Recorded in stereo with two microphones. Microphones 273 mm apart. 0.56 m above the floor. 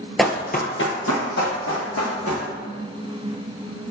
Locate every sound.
0.2 s running footsteps: centre (ahead or behind), 0.5 m; by 2.4 s 75° left (ahead or behind), 2.5 m